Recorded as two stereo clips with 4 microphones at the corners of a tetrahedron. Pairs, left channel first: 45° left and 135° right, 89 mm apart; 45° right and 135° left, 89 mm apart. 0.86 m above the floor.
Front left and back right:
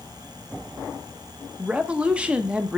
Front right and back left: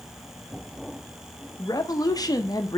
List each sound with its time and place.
1.6 s a woman speaking: 60° right, 0.8 m